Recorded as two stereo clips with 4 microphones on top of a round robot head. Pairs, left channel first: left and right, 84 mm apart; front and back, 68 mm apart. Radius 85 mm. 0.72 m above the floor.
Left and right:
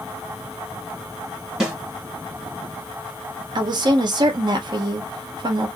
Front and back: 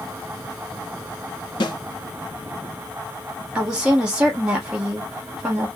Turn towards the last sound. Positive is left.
turn(degrees=-100)